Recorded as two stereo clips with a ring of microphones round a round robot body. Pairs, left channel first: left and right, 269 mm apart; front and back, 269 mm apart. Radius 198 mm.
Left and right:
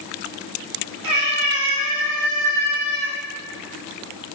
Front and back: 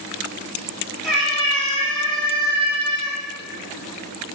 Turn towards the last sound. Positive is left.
turn(degrees=-75)